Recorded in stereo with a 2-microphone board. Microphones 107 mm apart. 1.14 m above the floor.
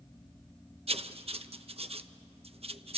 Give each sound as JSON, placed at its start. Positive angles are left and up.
{"t": 0.9, "sound": "writing", "side_deg": -65, "distance_m": 0.8}